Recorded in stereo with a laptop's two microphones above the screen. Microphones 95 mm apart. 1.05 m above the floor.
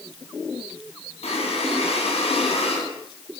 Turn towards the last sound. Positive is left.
turn(degrees=85)